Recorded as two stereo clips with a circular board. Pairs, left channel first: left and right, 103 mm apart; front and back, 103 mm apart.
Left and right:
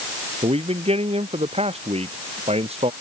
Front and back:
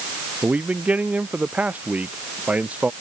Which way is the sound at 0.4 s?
105° right.